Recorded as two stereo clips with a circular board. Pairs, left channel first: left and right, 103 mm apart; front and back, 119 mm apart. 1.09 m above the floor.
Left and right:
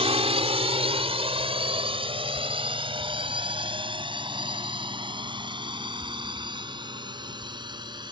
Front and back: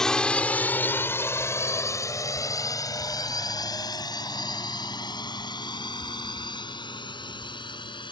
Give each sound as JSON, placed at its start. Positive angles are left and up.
{"t": 0.0, "sound": "a drone", "azimuth_deg": -85}